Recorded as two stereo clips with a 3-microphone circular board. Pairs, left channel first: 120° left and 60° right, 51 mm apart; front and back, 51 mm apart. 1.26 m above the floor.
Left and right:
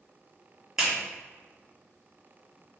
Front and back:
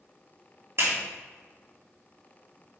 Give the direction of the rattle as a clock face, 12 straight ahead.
No rattle in this recording.